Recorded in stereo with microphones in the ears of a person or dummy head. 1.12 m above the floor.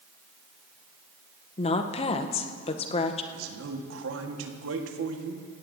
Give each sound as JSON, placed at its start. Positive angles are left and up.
{"t": 1.6, "sound": "a woman speaking", "side_deg": 30, "distance_m": 0.7}
{"t": 3.3, "sound": "a man speaking", "side_deg": -80, "distance_m": 1.5}